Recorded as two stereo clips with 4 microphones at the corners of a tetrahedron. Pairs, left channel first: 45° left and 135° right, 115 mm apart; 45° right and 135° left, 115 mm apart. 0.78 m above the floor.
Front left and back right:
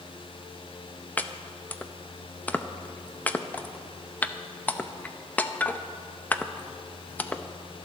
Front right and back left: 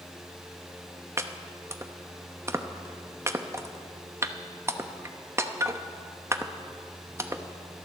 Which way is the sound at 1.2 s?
105° left.